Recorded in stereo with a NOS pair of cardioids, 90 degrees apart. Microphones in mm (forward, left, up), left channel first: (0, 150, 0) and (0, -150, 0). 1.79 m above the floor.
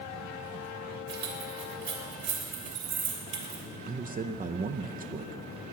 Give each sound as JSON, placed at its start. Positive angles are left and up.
{"t": 1.1, "sound": "keys jangling", "azimuth_deg": -70, "distance_m": 3.0}
{"t": 3.9, "sound": "a man speaking", "azimuth_deg": -30, "distance_m": 0.7}